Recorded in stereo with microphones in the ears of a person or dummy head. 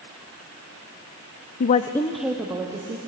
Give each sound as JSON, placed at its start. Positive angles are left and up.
{"t": 1.6, "sound": "a woman speaking", "side_deg": 55, "distance_m": 0.5}